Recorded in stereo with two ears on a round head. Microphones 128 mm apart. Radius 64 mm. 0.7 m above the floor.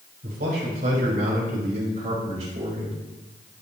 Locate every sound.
0.2 s a man speaking: 75° right (ahead or behind), 4.5 m; by 3.0 s 45° right (ahead or behind), 3.5 m